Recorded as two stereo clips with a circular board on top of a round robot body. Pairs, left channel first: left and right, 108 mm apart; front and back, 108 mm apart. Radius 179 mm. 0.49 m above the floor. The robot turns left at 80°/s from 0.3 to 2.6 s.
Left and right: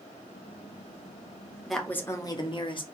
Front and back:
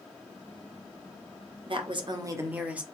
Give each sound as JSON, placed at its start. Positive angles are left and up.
{"t": 1.7, "sound": "a woman speaking", "azimuth_deg": 180, "distance_m": 1.3}